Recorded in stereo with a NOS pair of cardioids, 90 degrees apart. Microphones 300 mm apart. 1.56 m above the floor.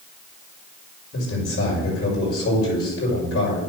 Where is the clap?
No clap in this recording.